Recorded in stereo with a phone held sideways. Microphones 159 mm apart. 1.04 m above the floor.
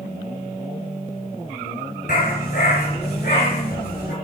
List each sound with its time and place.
2.1 s a dog barking: 70° left (ahead or behind), 5 m; by 4.1 s 80° left, 5 m